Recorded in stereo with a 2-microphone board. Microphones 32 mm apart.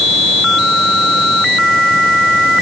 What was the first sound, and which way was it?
Only background noise.